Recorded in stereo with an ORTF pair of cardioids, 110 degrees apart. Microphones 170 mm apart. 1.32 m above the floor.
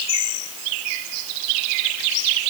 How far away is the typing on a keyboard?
No typing on a keyboard in this recording.